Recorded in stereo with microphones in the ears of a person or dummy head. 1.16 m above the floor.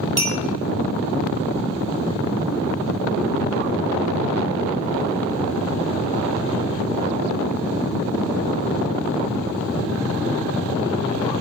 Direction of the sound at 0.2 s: 40° right (ahead or behind).